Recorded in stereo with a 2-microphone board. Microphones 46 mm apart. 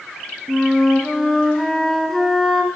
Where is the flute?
5° left (ahead or behind), 0.6 m.